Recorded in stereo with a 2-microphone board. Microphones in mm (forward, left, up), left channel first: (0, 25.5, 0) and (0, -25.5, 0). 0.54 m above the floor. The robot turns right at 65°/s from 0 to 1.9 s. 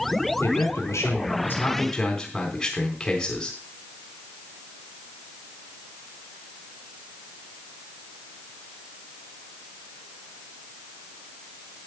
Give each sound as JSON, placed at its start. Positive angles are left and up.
{"t": 0.4, "sound": "a man speaking", "azimuth_deg": 70, "distance_m": 4.0}